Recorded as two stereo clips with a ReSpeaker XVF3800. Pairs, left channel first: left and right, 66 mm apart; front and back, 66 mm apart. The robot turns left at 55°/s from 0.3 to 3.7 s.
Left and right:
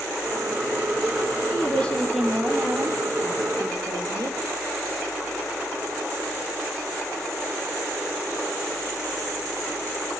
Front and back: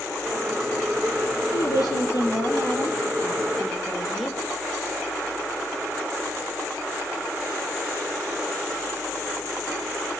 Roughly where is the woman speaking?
Ahead left.